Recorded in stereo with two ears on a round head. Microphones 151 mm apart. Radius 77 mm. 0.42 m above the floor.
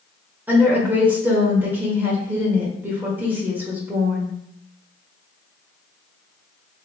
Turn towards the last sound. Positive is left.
turn(degrees=-10)  # may be behind; listen again after turning